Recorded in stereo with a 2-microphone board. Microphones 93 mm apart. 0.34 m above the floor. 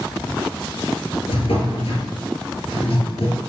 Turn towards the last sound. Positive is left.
turn(degrees=85)